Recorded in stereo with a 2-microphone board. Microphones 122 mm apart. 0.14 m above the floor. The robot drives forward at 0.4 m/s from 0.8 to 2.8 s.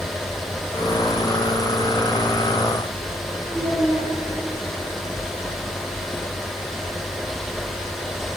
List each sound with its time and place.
3.5 s a child speaking: 35° left (ahead or behind), 1.7 m